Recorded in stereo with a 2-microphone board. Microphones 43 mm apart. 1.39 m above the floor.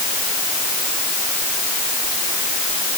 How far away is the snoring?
No snoring in this recording.